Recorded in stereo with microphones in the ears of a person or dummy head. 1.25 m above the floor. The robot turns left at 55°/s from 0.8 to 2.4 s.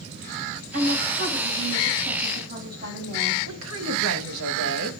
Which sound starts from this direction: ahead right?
A woman speaking, at 0.7 s.